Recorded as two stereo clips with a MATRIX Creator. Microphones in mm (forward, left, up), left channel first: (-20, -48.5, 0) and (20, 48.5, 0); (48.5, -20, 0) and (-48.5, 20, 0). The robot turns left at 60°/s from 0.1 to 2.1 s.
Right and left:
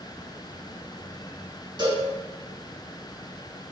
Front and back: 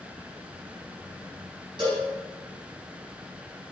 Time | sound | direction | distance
1.8 | a cowbell | 115° left | 3.5 m